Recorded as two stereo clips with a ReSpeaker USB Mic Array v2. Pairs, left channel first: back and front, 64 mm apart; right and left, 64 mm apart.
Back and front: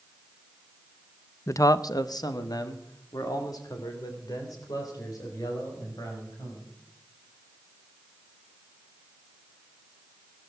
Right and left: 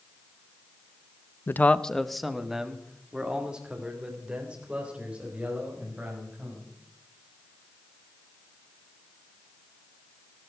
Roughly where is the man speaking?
Behind right.